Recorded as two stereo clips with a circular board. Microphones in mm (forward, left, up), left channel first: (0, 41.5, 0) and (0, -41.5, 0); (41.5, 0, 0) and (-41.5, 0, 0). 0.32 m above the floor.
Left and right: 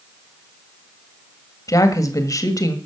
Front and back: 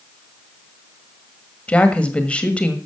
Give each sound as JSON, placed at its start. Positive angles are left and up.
{"t": 1.7, "sound": "a woman speaking", "azimuth_deg": 70, "distance_m": 1.6}